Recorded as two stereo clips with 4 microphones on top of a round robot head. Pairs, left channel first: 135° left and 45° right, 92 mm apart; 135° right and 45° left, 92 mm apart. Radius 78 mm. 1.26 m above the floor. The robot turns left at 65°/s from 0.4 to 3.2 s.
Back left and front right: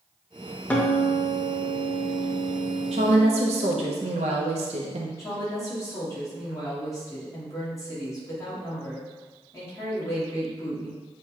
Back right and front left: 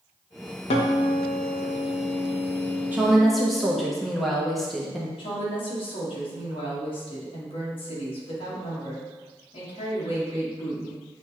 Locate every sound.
0.7 s a guitar: 145° right, 0.6 m; by 3.9 s 50° left, 0.6 m
2.9 s a woman speaking: 30° right, 0.7 m; by 5.1 s 50° right, 0.7 m
5.2 s a woman speaking: 165° right, 1.5 m